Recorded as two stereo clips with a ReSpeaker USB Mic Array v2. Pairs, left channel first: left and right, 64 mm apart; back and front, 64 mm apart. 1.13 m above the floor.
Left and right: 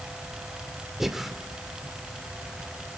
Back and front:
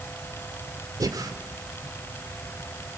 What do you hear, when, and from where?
1.0 s breathing: 5° right, 2 m